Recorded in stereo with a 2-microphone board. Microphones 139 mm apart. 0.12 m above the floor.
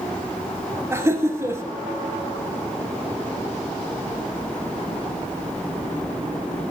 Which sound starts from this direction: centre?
Laughter, at 0.9 s.